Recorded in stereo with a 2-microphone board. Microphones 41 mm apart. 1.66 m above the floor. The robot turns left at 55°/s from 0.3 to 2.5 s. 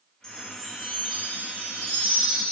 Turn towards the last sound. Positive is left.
turn(degrees=-105)